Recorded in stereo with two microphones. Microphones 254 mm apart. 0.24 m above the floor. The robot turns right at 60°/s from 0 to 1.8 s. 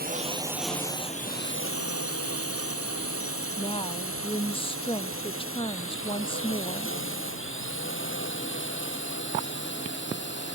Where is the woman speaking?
20° left (ahead or behind).